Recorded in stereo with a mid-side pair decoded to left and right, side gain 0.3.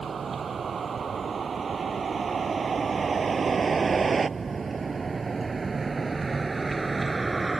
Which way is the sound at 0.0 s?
65° right.